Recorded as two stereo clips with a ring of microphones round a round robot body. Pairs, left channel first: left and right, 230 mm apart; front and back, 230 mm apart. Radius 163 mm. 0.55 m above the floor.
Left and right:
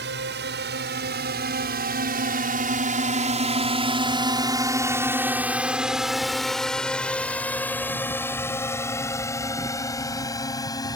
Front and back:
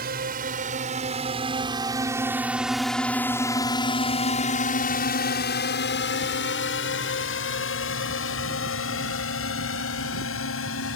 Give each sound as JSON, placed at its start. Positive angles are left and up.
{"t": 0.0, "sound": "a drone", "azimuth_deg": -130}